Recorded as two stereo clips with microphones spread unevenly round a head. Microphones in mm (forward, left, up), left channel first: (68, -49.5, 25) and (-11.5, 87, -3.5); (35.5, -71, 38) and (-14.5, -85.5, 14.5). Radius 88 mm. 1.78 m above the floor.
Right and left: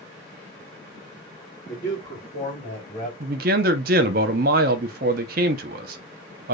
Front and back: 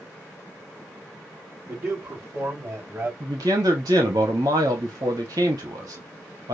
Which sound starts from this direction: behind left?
A man speaking, at 3.2 s.